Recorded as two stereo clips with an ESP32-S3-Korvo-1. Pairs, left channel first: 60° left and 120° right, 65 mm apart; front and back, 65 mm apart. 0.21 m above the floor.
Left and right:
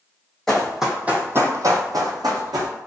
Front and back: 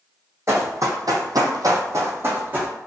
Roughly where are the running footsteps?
Behind left.